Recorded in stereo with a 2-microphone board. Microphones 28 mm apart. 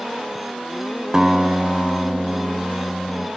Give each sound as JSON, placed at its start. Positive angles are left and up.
{"t": 1.1, "sound": "a guitar", "side_deg": -20, "distance_m": 0.6}